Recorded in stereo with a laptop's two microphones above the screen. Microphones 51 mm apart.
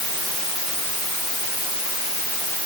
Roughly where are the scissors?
No scissors in this recording.